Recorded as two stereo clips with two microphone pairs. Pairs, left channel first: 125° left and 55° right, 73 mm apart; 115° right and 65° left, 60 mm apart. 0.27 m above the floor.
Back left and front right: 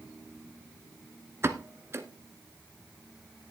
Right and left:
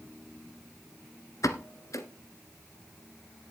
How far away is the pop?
About 1.2 m.